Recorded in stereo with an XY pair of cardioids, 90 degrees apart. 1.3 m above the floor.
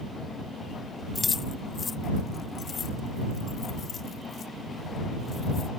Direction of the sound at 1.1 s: 30° left.